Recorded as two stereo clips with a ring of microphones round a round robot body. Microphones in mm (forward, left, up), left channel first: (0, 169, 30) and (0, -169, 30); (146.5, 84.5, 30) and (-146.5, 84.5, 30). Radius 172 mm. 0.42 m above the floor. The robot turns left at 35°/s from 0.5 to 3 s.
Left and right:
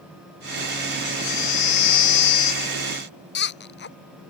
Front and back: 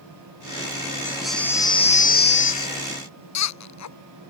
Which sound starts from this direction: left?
A baby crying, at 1.1 s.